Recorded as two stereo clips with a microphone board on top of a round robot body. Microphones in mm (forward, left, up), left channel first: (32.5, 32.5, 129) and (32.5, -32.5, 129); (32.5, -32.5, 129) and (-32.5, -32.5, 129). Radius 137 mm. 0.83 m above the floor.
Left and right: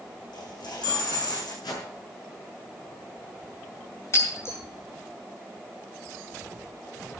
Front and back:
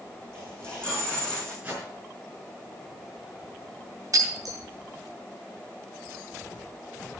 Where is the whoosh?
105° left, 5.5 m.